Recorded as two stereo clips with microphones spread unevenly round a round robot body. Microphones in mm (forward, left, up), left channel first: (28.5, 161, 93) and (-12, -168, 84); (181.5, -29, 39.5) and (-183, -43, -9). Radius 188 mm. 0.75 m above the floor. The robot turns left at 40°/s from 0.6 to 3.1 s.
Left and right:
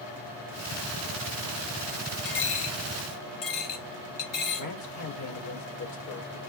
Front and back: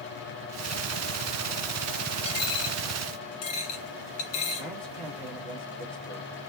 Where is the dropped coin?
70° left, 1.6 m; by 4.7 s 40° left, 1.6 m.